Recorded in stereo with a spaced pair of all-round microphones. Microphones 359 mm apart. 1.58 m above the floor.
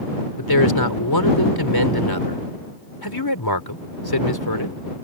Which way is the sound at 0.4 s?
85° left.